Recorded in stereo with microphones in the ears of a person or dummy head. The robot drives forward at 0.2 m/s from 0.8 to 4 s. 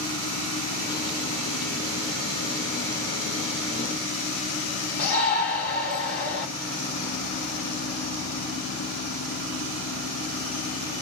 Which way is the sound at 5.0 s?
75° left (ahead or behind).